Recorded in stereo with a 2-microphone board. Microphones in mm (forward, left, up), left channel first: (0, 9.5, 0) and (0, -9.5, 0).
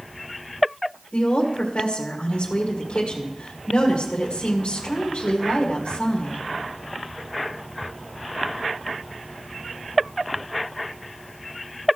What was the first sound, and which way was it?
A woman speaking, 85° left.